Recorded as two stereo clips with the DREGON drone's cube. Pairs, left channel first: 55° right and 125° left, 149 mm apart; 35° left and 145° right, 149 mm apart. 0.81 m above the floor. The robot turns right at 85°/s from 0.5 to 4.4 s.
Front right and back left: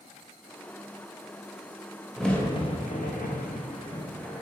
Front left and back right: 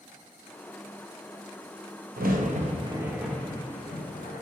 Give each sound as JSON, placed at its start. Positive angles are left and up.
{"t": 2.2, "sound": "a crack", "azimuth_deg": -150, "distance_m": 0.5}